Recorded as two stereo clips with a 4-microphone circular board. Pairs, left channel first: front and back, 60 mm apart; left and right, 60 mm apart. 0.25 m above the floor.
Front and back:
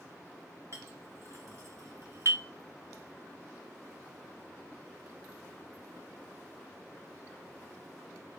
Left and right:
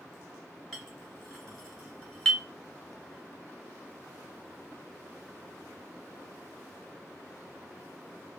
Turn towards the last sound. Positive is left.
turn(degrees=170)